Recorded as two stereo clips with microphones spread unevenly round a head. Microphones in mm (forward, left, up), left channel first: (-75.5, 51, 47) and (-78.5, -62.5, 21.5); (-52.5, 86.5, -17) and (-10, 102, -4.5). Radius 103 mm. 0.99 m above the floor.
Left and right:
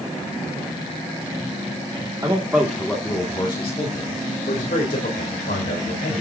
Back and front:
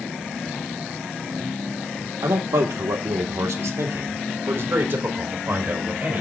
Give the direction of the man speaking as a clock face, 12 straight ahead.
1 o'clock.